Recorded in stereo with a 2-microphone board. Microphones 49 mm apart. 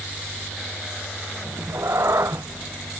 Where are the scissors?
No scissors in this recording.